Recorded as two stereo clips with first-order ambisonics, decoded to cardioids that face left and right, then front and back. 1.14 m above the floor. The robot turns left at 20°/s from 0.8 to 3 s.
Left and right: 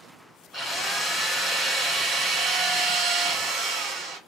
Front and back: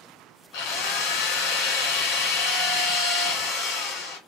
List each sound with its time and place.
0.5 s a drill: 5° right, 2 m; by 4.2 s 45° right, 2 m